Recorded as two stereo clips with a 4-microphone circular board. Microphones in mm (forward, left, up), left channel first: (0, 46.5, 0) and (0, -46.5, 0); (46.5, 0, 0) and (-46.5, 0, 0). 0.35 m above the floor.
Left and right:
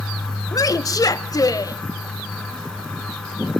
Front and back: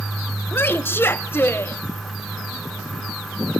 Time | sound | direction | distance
0.5 | a woman speaking | 55° left | 1.2 m